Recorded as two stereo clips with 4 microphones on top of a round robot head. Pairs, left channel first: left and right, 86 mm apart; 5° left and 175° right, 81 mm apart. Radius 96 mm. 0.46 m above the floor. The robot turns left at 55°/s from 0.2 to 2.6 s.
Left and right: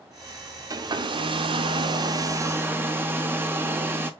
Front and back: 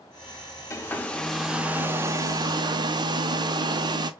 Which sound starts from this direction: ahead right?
A hair dryer, at 0.7 s.